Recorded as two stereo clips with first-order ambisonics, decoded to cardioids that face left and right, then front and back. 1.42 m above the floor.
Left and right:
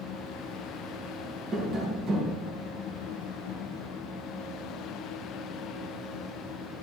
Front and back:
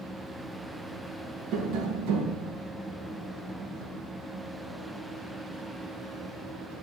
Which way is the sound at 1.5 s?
145° right.